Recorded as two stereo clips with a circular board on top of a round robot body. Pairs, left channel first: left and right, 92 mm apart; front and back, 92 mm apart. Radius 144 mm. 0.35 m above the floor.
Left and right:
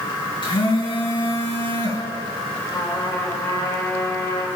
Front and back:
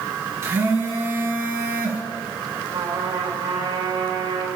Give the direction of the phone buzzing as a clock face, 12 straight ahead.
8 o'clock.